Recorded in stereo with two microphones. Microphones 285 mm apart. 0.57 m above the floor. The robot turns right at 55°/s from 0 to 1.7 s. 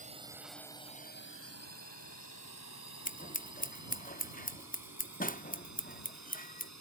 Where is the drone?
25° right (ahead or behind); by 6.8 s 65° left (ahead or behind).